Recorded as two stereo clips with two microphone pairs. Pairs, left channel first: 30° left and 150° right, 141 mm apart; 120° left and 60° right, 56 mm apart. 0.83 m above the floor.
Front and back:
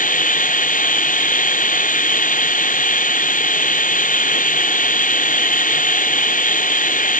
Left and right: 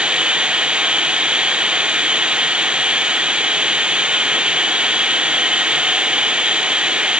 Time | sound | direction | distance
0.0 | running water | 10° left | ?